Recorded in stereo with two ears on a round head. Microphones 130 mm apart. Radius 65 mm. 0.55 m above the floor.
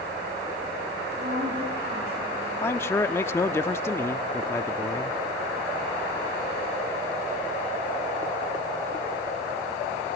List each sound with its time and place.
1.2 s a woman speaking: 45° right (ahead or behind), 8 m
2.6 s a man speaking: 15° left (ahead or behind), 0.7 m